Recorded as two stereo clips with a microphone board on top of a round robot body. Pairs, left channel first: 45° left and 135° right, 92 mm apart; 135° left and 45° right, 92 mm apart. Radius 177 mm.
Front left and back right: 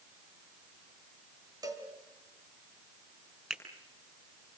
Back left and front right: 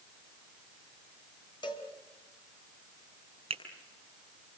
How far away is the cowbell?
About 3 m.